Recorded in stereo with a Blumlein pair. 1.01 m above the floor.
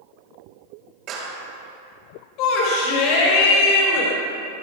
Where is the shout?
40° left, 3.5 m.